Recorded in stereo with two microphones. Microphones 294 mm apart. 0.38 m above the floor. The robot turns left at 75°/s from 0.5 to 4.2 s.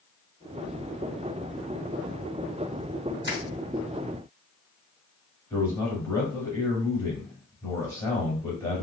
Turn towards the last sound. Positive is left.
turn(degrees=10)  # may be behind; listen again after turning